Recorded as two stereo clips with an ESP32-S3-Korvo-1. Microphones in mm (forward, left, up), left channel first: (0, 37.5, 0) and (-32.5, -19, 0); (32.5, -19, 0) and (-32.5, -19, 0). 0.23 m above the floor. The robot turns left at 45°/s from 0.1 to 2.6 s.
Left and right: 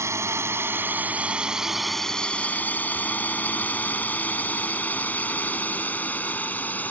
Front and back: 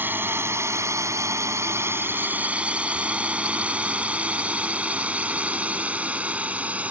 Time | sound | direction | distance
0.0 | a drone | 135° right | ?